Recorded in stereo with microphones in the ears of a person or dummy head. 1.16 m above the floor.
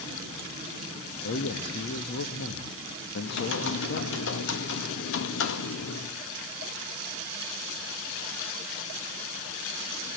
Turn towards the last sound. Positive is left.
turn(degrees=60)  # may be behind; listen again after turning